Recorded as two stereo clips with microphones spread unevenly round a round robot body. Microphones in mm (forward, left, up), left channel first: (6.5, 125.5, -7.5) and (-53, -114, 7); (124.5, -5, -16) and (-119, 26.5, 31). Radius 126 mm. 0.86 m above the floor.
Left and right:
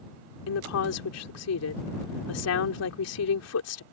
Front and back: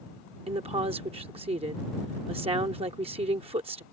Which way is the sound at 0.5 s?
100° left.